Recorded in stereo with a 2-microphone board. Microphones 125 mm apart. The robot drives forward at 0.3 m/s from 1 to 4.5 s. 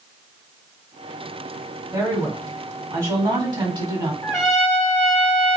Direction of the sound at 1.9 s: 25° right (ahead or behind).